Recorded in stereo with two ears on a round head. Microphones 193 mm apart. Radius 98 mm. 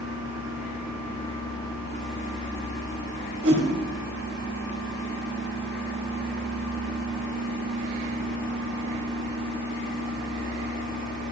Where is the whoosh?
55° right (ahead or behind), 2 m.